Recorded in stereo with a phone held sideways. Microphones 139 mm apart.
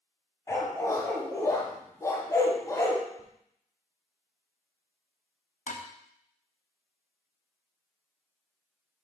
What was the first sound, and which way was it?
A dog barking, 25° left (ahead or behind).